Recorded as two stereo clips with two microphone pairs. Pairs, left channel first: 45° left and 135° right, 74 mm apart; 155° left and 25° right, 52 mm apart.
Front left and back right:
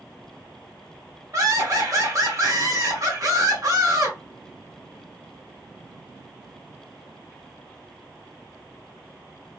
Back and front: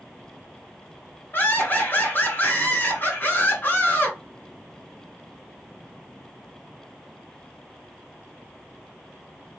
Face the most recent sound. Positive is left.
turn(degrees=-165)